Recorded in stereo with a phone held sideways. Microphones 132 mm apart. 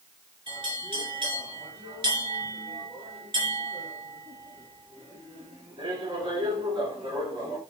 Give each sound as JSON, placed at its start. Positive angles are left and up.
{"t": 0.5, "sound": "a bell", "side_deg": -40, "distance_m": 1.9}